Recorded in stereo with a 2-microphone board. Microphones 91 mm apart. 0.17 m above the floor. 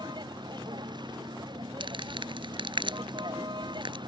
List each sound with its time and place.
0.0 s a vehicle: 55° right (ahead or behind)
1.8 s crumpling: 65° right (ahead or behind)